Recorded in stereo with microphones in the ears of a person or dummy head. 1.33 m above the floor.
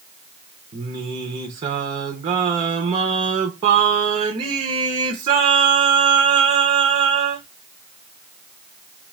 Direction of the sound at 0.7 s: 25° right (ahead or behind).